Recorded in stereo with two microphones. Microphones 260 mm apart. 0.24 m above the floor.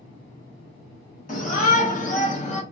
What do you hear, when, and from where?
1.3 s a shout: 30° left (ahead or behind), 1.5 m; by 2.6 s 25° left (ahead or behind), 1.2 m